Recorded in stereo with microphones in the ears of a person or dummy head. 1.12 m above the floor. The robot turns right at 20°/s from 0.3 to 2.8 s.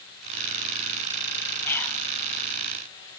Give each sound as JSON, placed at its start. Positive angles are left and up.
{"t": 1.6, "sound": "whispering", "side_deg": 15, "distance_m": 0.7}